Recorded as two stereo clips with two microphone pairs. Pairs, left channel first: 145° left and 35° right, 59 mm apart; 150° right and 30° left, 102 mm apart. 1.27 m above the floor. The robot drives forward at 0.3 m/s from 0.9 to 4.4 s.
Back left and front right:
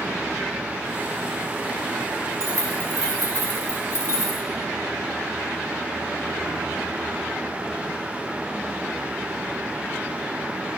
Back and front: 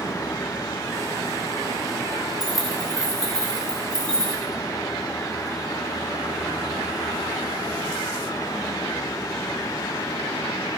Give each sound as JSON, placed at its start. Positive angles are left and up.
{"t": 2.4, "sound": "keys jangling", "azimuth_deg": -60, "distance_m": 3.0}